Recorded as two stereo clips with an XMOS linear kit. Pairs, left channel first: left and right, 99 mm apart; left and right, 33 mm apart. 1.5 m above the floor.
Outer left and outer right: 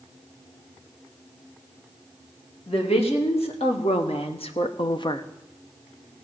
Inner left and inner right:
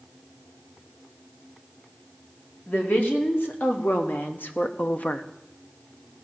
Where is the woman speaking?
80° left, 2.5 m; by 5.2 s 40° left (ahead or behind), 0.7 m.